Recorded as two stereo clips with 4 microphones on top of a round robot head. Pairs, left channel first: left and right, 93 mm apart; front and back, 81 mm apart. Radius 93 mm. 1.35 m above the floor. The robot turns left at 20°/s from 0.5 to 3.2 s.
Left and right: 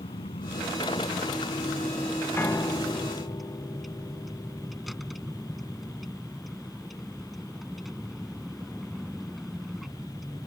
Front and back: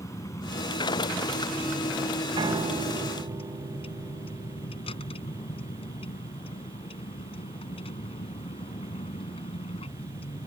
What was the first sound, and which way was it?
A vehicle, 55° left.